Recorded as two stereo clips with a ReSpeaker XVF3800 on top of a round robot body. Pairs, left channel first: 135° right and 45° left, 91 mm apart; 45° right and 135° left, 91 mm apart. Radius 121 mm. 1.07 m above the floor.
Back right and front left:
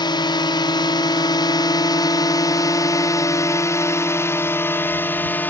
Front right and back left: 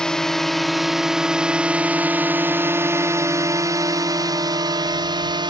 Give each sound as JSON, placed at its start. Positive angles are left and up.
{"t": 0.0, "sound": "a drone", "azimuth_deg": -125}